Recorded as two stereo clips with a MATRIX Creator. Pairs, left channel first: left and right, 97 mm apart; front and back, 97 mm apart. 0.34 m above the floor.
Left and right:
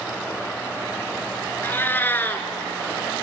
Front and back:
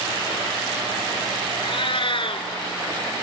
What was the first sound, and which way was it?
A cat meowing, 20° left.